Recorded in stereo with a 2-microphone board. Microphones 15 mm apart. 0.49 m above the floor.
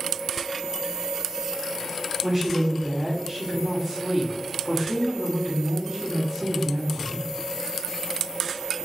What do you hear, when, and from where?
2.2 s a woman speaking: 20° right (ahead or behind), 1.4 m